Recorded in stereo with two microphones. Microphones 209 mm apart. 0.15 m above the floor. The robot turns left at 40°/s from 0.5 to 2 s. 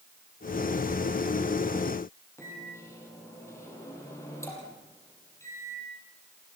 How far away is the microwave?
About 5 m.